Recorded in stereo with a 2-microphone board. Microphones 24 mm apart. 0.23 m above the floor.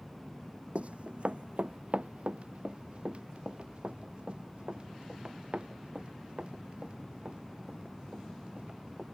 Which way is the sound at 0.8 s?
60° right (ahead or behind).